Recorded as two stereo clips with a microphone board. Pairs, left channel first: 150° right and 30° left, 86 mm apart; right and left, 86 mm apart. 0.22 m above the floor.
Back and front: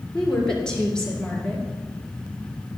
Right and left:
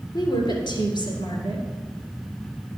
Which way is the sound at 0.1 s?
70° right.